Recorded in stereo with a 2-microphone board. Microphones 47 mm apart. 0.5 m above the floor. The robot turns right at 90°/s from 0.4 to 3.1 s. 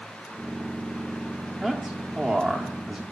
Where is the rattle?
No rattle in this recording.